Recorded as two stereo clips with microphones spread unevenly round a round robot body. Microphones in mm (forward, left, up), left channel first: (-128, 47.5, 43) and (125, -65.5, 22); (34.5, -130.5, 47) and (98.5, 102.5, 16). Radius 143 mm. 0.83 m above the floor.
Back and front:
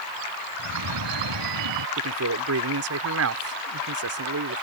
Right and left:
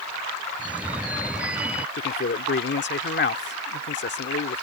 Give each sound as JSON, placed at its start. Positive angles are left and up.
{"t": 0.6, "sound": "a phone ringing", "azimuth_deg": -10}
{"t": 2.0, "sound": "a man speaking", "azimuth_deg": -60}